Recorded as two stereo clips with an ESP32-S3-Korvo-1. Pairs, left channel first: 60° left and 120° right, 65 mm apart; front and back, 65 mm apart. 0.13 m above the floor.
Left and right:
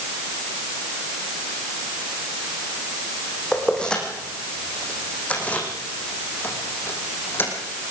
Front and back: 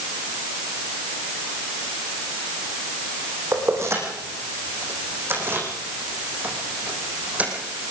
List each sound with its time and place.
3.5 s keys jangling: 140° left, 6 m; by 7.5 s 110° left, 5 m